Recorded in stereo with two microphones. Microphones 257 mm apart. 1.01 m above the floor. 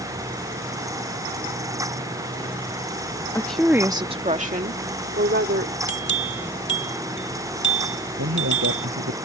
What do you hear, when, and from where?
3.4 s a woman speaking: 10° left (ahead or behind); by 5.7 s 45° right (ahead or behind)
5.9 s a bell: 45° left (ahead or behind)
8.2 s a man speaking: 65° right (ahead or behind)